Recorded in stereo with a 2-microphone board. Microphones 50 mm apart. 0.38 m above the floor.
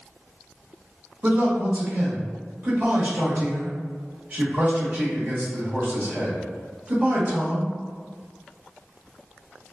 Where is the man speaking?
35° right (ahead or behind), 1.1 m.